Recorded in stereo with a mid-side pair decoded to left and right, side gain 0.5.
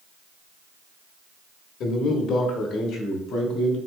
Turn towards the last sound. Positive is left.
turn(degrees=75)